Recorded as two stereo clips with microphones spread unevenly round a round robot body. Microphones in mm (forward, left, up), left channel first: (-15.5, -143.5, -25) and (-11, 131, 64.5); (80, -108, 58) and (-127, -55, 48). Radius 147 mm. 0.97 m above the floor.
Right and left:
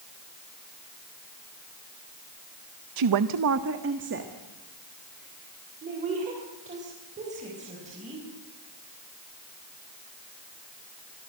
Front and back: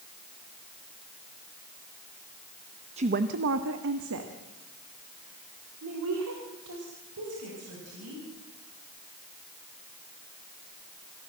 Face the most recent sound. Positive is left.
turn(degrees=155)